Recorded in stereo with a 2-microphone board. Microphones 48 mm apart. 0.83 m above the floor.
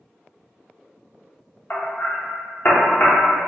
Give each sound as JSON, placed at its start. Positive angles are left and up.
{"t": 1.7, "sound": "hammering", "side_deg": 40, "distance_m": 0.6}